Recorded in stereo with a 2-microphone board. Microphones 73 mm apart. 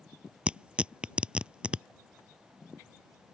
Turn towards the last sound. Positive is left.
turn(degrees=-15)  # may be behind; listen again after turning